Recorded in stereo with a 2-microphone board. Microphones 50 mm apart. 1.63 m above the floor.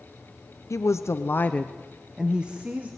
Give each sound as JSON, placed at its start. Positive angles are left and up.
{"t": 0.7, "sound": "a woman speaking", "side_deg": 80, "distance_m": 1.1}